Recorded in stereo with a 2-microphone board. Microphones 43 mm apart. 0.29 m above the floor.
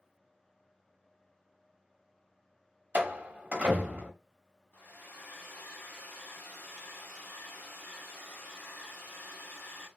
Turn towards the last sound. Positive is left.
turn(degrees=45)  # may be behind; listen again after turning